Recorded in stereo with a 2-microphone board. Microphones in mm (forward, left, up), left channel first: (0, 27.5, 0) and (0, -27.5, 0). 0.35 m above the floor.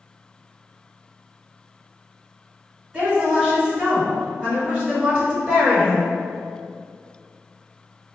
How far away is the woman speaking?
About 1.4 m.